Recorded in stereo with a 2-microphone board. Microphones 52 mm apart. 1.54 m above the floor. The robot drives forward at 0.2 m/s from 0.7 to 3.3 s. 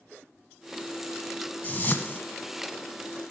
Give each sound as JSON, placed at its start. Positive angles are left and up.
{"t": 1.6, "sound": "a whoosh", "side_deg": 40, "distance_m": 1.7}